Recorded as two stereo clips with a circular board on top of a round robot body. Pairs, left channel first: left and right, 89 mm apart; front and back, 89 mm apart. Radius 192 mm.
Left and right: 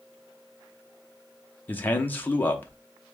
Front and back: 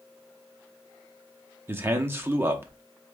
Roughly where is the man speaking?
Behind left.